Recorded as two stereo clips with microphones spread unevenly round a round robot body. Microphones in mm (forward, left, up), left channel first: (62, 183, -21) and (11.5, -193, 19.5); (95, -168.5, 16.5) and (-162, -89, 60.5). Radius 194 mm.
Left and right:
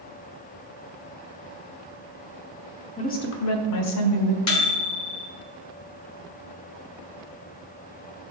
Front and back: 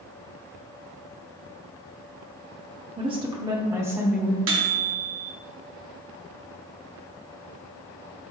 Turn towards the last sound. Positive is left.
turn(degrees=115)